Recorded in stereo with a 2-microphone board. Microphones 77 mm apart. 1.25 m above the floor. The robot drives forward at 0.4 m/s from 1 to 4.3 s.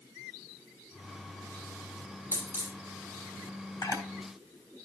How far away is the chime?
No chime in this recording.